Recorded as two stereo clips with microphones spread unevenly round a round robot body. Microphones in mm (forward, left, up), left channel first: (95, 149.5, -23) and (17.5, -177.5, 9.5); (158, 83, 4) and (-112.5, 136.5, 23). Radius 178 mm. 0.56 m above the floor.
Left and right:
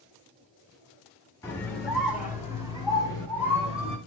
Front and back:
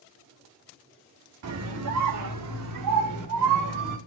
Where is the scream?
155° left, 1.1 m; by 4.0 s straight behind, 2.5 m.